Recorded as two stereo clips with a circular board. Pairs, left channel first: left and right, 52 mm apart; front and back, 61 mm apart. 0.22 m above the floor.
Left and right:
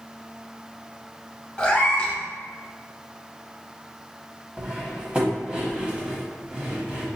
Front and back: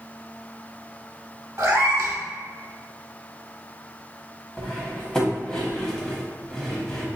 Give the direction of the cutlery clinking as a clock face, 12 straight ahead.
2 o'clock.